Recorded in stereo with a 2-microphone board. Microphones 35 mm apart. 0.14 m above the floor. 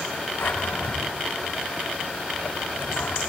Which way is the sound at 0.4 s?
75° left (ahead or behind).